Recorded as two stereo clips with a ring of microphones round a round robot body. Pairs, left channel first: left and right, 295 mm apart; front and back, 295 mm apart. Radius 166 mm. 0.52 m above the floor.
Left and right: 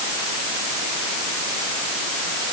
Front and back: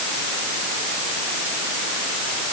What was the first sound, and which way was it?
Only background noise.